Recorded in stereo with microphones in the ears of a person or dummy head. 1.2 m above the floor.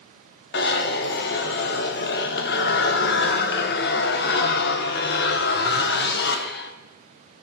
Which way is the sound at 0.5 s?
50° left (ahead or behind).